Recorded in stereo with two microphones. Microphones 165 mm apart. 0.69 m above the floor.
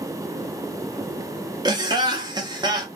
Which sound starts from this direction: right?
Laughter, at 1.6 s.